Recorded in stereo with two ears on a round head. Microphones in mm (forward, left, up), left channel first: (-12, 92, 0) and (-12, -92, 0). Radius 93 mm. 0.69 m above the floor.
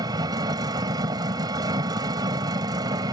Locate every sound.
0.0 s an engine running: 20° right (ahead or behind)